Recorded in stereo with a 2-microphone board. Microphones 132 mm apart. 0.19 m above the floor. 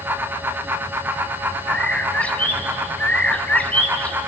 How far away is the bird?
About 1.2 m.